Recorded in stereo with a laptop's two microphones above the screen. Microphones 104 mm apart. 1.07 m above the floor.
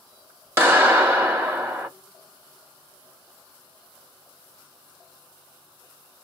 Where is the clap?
25° right (ahead or behind), 1.5 m.